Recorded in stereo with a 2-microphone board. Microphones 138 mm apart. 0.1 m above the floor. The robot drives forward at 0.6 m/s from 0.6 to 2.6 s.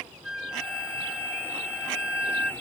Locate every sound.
0.2 s a flute: 5° right (ahead or behind); by 2.5 s 10° right (ahead or behind)